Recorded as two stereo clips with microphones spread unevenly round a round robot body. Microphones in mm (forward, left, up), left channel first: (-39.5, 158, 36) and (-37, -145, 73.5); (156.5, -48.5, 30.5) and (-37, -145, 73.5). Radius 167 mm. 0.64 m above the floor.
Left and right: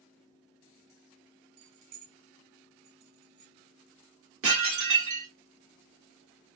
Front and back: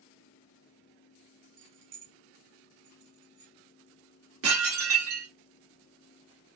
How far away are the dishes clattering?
About 1.4 m.